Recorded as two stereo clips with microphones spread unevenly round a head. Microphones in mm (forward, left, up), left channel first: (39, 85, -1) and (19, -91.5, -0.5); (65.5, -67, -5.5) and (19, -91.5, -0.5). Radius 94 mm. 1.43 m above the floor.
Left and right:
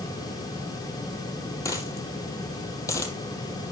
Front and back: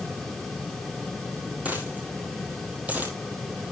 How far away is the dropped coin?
About 2 m.